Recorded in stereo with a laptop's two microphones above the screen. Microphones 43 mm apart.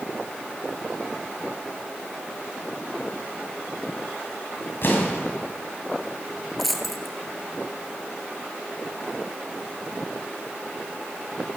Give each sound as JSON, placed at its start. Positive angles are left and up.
{"t": 4.8, "sound": "an explosion", "side_deg": 55, "distance_m": 2.5}
{"t": 6.6, "sound": "a dropped coin", "side_deg": 0, "distance_m": 1.7}